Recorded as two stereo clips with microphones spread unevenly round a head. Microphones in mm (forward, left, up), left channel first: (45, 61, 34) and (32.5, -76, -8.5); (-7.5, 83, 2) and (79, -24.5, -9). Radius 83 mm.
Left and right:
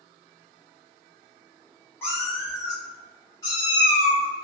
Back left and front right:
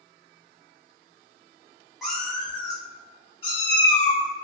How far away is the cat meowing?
About 1.1 m.